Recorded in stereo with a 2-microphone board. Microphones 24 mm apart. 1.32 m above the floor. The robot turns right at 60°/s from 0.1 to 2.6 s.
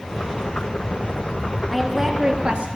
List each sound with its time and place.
1.7 s a woman speaking: 175° left, 1.7 m; by 2.7 s 130° right, 1.7 m